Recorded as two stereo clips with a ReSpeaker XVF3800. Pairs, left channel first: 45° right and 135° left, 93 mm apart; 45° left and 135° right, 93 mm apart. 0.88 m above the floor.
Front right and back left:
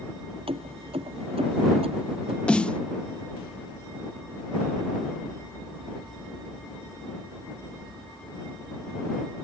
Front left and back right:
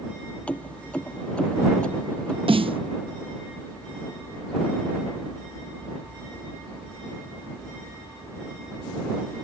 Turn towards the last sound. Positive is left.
turn(degrees=-120)